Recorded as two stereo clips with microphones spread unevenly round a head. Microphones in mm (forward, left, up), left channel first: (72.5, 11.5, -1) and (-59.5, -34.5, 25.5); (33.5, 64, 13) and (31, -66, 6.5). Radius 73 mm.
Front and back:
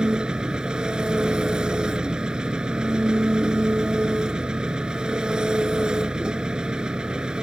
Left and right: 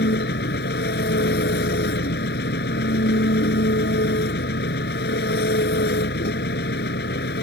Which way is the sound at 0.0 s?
115° left.